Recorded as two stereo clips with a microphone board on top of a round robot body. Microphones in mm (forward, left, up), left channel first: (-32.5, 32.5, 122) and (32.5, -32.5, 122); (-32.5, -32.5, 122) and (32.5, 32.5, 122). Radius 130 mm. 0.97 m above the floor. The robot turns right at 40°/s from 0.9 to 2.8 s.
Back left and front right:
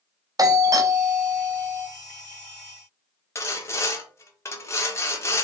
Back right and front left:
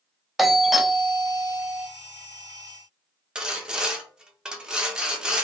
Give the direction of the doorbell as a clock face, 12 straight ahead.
1 o'clock.